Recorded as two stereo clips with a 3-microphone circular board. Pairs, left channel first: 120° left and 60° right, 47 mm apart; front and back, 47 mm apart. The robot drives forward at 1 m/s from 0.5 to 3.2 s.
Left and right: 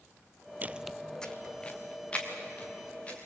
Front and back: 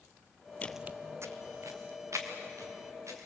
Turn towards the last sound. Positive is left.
turn(degrees=-175)